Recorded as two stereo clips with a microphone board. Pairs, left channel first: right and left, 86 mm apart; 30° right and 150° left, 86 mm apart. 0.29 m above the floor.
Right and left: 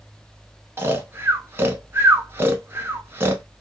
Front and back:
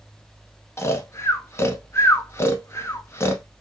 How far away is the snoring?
About 0.6 m.